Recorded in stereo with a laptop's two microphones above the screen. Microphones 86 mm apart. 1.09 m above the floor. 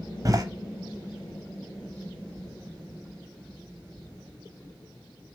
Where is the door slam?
40° right (ahead or behind), 0.9 m.